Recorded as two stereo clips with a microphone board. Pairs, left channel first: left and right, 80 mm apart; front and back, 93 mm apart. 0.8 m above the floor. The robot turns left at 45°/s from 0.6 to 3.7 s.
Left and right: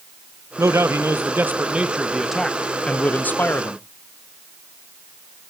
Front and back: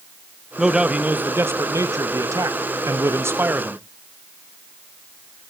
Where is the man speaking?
100° right, 0.7 m; by 3.8 s 120° left, 0.7 m.